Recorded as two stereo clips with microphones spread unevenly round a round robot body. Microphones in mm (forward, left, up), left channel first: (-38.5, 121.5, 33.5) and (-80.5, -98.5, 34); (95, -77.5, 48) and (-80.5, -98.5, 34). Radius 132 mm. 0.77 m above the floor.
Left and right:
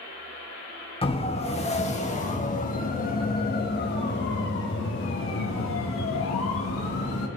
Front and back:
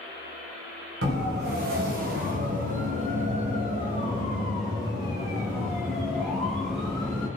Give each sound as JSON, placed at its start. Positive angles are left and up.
{"t": 1.0, "sound": "a siren", "azimuth_deg": 145, "distance_m": 4.0}